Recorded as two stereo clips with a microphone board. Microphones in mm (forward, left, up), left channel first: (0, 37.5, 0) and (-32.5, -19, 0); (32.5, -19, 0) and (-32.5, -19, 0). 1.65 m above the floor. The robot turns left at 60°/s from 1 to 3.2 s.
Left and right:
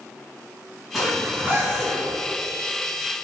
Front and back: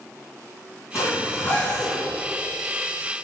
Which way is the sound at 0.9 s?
30° right.